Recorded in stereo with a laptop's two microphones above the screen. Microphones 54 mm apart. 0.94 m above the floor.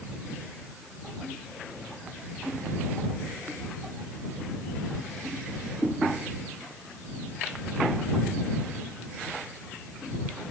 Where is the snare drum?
No snare drum in this recording.